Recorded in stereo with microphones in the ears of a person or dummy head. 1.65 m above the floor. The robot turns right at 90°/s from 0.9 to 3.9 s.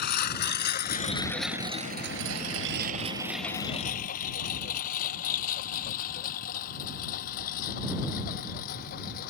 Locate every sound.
0.0 s a lawn mower: 55° left (ahead or behind); by 9.3 s 45° left (ahead or behind)